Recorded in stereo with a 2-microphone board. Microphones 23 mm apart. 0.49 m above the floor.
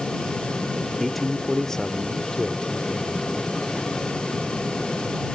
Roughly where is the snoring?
No snoring in this recording.